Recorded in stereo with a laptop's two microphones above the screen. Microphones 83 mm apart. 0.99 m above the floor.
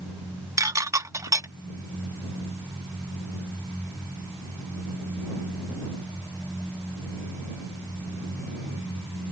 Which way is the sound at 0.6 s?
40° right (ahead or behind).